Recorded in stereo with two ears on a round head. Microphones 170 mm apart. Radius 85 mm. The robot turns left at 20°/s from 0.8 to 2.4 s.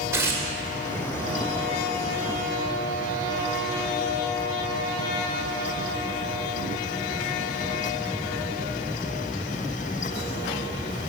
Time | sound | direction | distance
0.1 | tearing paper | 15° right (ahead or behind) | 1.7 m